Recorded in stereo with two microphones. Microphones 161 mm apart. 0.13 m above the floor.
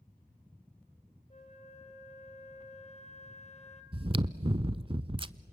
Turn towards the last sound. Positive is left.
turn(degrees=-30)  # may be behind; listen again after turning